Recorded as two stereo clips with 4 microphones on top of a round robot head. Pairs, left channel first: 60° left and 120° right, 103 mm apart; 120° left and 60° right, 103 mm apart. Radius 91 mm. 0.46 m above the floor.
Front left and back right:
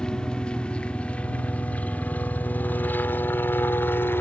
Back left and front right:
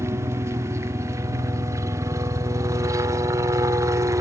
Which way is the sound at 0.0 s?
20° right.